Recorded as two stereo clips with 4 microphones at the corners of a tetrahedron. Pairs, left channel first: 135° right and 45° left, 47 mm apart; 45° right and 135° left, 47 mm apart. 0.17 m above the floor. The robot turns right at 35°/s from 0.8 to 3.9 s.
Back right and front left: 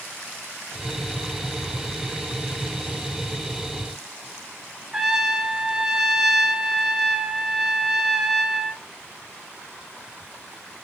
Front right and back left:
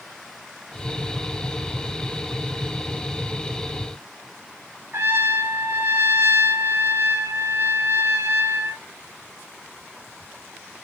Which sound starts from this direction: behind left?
A trumpet, at 4.9 s.